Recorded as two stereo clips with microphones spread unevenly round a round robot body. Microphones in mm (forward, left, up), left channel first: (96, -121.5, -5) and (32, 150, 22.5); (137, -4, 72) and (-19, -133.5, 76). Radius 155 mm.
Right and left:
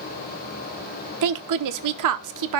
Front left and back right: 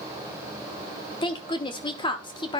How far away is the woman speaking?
About 1.0 m.